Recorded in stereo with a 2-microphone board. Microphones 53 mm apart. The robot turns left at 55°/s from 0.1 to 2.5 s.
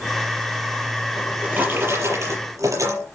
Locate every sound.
1.1 s a drawer: 10° right, 7 m; by 3.0 s 80° right, 7 m